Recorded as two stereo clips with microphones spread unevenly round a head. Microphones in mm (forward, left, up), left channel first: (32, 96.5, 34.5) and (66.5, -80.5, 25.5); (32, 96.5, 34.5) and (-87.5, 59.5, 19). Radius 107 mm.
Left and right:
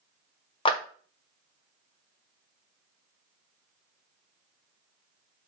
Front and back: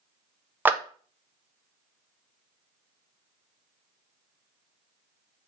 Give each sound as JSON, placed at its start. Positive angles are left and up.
{"t": 0.7, "sound": "a clap", "azimuth_deg": 145, "distance_m": 0.6}